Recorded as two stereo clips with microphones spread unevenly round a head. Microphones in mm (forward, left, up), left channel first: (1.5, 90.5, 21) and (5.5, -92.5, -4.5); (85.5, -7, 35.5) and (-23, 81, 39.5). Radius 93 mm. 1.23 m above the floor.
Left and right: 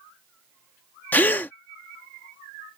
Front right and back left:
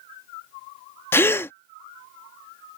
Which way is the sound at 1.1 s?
30° left.